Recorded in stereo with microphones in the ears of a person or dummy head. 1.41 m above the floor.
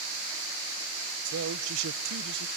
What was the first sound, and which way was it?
A man speaking, 75° right (ahead or behind).